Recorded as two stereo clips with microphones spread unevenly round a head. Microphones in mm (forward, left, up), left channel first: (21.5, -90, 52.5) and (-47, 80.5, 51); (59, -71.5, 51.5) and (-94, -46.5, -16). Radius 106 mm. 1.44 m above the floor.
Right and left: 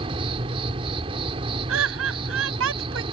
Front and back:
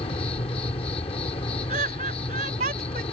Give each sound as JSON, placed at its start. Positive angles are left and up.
{"t": 0.0, "sound": "an insect", "azimuth_deg": 45}
{"t": 1.7, "sound": "laughter", "azimuth_deg": 115}